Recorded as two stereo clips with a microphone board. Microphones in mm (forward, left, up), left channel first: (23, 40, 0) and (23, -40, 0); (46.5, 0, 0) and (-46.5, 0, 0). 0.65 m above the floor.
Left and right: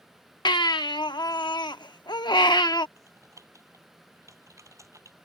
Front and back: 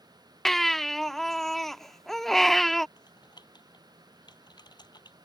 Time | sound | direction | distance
0.5 | a baby crying | 85° left | ?
3.0 | typing on a keyboard | 40° right | ?